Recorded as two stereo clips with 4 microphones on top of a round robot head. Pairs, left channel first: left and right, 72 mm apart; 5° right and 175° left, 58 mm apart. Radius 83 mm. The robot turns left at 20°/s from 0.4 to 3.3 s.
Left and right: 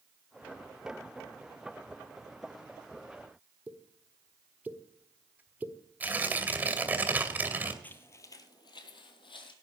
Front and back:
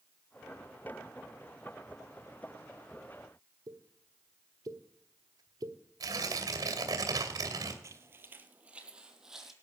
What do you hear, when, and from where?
3.7 s a pop: 160° right, 1.3 m
6.0 s tearing paper: 160° right, 2.5 m
7.8 s footsteps: 150° left, 1.1 m; by 9.5 s 90° left, 1.8 m